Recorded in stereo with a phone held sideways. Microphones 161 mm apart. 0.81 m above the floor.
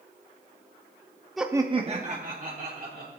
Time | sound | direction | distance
1.4 | laughter | centre (ahead or behind) | 0.6 m